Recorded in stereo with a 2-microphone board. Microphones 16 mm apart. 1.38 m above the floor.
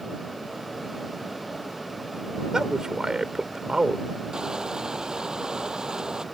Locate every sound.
2.5 s a man speaking: 45° right (ahead or behind)
4.3 s crushing: 55° right (ahead or behind)